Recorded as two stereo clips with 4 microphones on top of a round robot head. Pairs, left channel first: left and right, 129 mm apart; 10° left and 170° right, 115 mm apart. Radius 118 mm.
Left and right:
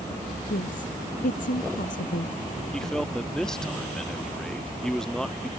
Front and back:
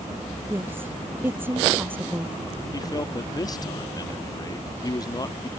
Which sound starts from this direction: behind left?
A woman speaking, at 0.5 s.